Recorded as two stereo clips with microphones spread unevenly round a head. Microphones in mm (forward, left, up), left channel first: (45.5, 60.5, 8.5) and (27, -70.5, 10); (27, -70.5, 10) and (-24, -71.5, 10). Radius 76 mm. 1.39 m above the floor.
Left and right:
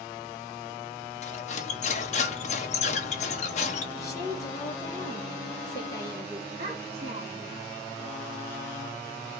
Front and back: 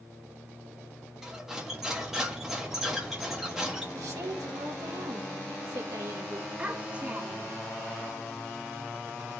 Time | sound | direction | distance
1.2 | cutlery clinking | 95° left | 0.8 m
3.9 | a woman speaking | 155° left | 1.4 m
6.6 | a child speaking | 120° right | 0.8 m